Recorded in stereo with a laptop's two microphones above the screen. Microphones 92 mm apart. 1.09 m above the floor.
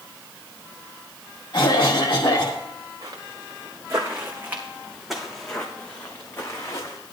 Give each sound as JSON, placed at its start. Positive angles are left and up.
{"t": 1.5, "sound": "a cough", "side_deg": 55, "distance_m": 1.3}
{"t": 3.0, "sound": "footsteps", "side_deg": -50, "distance_m": 4.5}